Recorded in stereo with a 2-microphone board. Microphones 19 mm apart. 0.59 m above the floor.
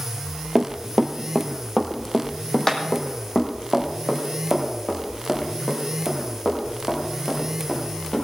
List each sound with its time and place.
0.6 s running footsteps: 35° right (ahead or behind), 0.8 m; by 8.2 s 45° left (ahead or behind), 5.5 m